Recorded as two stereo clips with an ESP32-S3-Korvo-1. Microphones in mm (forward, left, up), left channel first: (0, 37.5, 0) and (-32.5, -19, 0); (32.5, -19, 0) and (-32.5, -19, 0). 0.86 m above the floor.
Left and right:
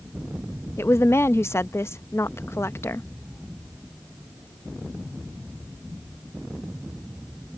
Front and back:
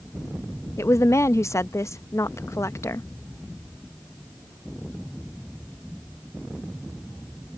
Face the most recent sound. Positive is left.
turn(degrees=25)